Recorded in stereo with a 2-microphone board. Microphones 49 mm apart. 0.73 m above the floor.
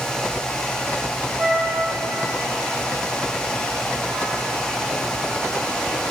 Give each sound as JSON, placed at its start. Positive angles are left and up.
{"t": 1.4, "sound": "a flute", "side_deg": -20, "distance_m": 3.5}